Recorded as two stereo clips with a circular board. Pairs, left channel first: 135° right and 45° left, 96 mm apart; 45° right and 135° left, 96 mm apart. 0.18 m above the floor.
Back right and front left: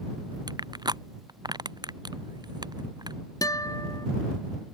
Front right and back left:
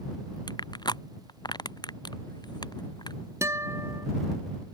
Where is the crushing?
Straight ahead.